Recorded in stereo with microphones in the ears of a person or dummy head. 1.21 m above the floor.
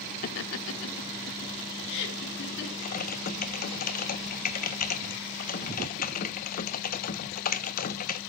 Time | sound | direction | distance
0.2 | laughter | 45° left (ahead or behind) | 0.5 m
2.8 | typing on a keyboard | 50° left (ahead or behind) | 0.8 m